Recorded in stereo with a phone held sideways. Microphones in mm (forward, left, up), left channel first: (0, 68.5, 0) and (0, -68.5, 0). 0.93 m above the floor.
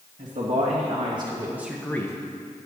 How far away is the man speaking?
About 1.6 m.